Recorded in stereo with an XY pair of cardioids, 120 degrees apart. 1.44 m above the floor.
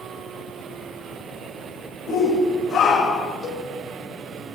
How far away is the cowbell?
About 7 m.